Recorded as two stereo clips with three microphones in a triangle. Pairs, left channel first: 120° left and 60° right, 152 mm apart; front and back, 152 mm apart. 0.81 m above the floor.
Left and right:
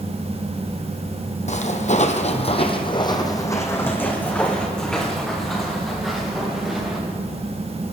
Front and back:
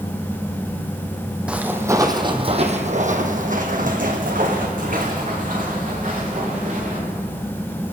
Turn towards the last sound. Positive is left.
turn(degrees=-145)